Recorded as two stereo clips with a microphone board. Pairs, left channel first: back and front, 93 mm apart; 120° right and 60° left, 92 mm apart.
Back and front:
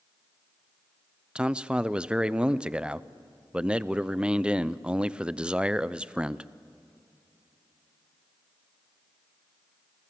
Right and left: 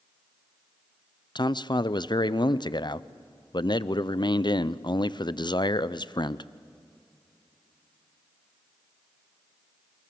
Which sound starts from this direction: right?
A man speaking, at 1.4 s.